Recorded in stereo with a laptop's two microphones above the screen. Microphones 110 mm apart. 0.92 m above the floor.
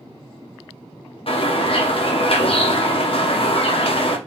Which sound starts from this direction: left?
A bird, at 1.3 s.